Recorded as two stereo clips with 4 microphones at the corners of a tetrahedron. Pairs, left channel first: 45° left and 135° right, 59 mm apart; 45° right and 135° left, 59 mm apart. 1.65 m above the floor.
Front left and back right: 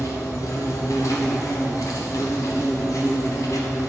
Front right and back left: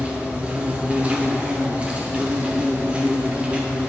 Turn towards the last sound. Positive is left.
turn(degrees=65)